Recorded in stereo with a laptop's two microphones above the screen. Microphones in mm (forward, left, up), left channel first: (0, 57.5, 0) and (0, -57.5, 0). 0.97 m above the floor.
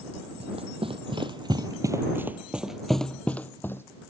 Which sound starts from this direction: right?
Running footsteps, at 0.4 s.